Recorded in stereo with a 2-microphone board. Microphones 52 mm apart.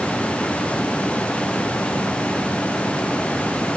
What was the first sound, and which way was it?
Only background noise.